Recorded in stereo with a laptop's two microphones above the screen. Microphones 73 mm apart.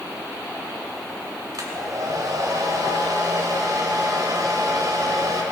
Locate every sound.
1.5 s a hair dryer: 60° right (ahead or behind), 2.5 m